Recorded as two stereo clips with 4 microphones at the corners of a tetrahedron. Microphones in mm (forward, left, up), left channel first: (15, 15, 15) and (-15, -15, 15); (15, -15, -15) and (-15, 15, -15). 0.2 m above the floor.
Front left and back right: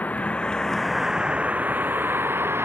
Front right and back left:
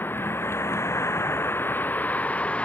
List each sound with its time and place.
0.0 s a vehicle: 5° right; by 2.6 s 105° right